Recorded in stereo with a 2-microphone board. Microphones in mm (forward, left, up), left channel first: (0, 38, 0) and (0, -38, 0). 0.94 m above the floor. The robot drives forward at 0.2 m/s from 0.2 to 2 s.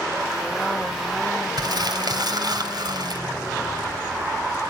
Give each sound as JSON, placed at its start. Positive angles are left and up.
{"t": 1.6, "sound": "crumpling", "side_deg": -65, "distance_m": 2.5}